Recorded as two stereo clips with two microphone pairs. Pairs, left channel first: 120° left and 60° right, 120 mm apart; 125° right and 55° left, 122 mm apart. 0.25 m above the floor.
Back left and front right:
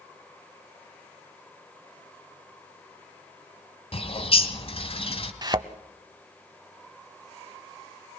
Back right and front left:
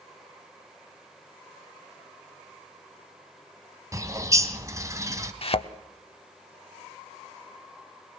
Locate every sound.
3.9 s a bird: 115° left, 1.9 m
5.4 s a thud: 110° right, 0.7 m